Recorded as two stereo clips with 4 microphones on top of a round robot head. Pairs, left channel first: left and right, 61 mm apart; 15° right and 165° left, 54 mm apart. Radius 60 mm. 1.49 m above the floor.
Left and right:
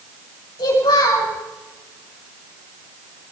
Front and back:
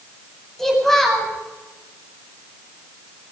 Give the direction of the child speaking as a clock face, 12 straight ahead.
10 o'clock.